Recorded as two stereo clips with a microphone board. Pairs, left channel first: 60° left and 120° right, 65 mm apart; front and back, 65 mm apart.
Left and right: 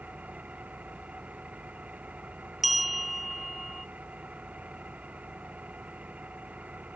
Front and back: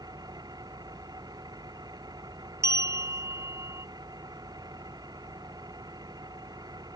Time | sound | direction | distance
0.0 | an engine running | 170° left | ?
2.6 | a bell | 150° left | ?